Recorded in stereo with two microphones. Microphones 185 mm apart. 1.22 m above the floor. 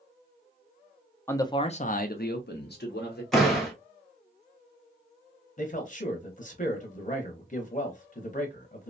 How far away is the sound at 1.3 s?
About 0.5 m.